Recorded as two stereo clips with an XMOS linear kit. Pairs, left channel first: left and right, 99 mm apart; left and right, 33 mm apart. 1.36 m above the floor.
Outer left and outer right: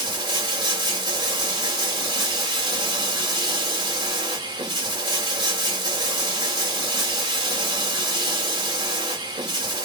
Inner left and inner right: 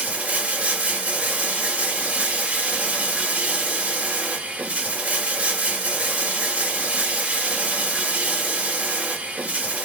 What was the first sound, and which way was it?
Running water, 45° right (ahead or behind).